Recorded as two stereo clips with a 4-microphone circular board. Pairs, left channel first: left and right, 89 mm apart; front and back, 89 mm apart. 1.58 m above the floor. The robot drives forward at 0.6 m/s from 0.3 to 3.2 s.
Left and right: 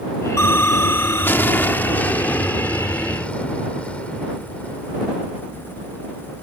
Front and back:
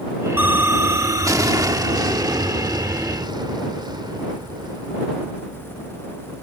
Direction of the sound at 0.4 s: 125° left.